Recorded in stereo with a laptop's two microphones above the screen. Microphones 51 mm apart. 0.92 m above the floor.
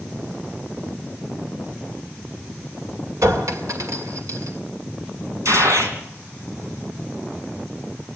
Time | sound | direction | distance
3.2 | a clink | 80° right | 2 m
5.5 | a gunshot | 70° right (ahead or behind) | 3.5 m